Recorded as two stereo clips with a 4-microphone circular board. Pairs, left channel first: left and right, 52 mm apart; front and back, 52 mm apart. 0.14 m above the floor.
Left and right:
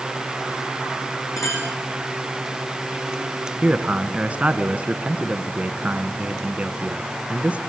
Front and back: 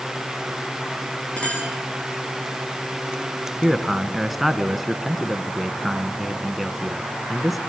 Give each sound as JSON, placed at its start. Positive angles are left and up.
{"t": 1.4, "sound": "a clink", "azimuth_deg": 65, "distance_m": 7.0}
{"t": 3.6, "sound": "a man speaking", "azimuth_deg": -95, "distance_m": 1.3}